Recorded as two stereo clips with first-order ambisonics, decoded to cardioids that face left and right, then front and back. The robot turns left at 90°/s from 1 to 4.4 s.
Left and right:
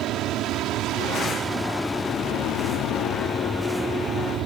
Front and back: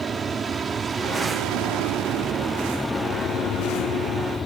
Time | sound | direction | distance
0.0 | an aircraft | 115° right | ?